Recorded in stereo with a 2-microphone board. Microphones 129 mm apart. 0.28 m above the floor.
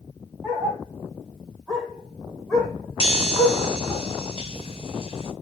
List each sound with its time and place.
0.4 s a dog barking: 10° right (ahead or behind), 4 m; by 4.0 s 20° left (ahead or behind), 3 m
3.0 s a chime: 50° left (ahead or behind), 1.7 m